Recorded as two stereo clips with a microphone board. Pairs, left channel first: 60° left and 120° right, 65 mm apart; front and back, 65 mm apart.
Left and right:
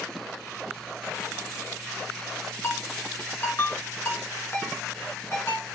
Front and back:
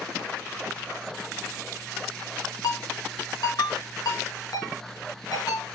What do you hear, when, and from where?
2.6 s a ringtone: 5° left, 4 m